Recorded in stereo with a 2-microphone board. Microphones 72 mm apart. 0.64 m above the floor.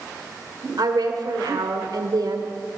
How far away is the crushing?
I don't hear crushing.